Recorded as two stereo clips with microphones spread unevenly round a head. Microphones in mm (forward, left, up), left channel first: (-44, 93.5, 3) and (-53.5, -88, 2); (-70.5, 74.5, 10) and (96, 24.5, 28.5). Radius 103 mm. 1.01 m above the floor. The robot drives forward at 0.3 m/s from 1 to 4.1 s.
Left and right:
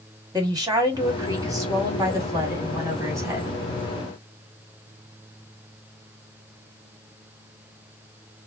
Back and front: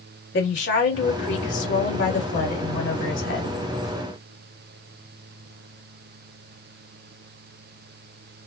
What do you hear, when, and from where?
0.3 s a woman speaking: 165° right, 2 m